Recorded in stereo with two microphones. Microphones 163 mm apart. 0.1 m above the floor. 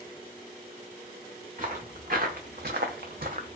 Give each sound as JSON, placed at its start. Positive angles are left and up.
{"t": 1.6, "sound": "footsteps", "side_deg": -55, "distance_m": 1.0}